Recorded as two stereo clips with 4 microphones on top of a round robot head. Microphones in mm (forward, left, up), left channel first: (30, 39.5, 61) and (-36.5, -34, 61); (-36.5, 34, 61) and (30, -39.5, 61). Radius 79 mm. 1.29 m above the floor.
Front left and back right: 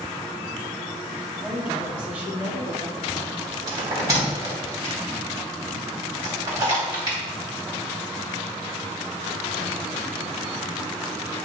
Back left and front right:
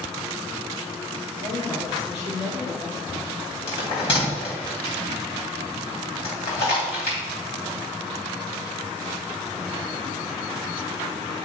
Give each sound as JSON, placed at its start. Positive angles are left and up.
{"t": 1.4, "sound": "a woman speaking", "azimuth_deg": 145, "distance_m": 3.5}
{"t": 3.7, "sound": "a bell", "azimuth_deg": 170, "distance_m": 3.5}